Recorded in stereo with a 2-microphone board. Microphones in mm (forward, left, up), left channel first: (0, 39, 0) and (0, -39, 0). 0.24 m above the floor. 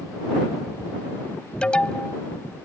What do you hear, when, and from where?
1.6 s an alarm: 15° left (ahead or behind)